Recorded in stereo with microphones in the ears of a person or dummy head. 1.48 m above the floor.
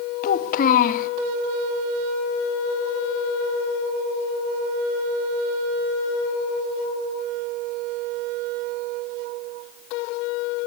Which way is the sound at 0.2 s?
50° left (ahead or behind).